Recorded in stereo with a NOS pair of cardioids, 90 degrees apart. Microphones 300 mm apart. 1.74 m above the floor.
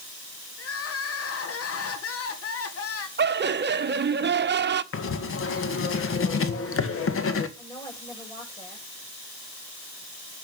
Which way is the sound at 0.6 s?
50° left.